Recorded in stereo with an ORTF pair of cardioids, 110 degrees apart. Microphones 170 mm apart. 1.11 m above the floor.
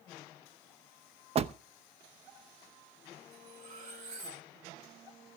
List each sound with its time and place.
1.4 s a door slam: 35° right, 0.8 m
3.3 s cutlery clinking: 55° right, 8 m